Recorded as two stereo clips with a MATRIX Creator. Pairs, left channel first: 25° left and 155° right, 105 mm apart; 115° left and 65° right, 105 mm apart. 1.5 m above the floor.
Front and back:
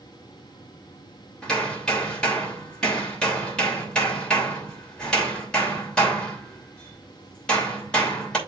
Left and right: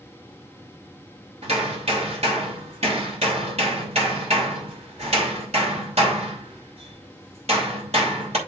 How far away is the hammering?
About 3 m.